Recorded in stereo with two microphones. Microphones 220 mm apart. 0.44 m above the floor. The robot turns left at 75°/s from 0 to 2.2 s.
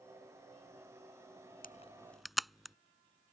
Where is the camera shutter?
40° left (ahead or behind); by 2.8 s centre (ahead or behind).